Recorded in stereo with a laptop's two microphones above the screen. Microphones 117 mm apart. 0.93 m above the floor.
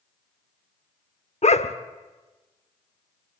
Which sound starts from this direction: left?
A dog barking, at 1.4 s.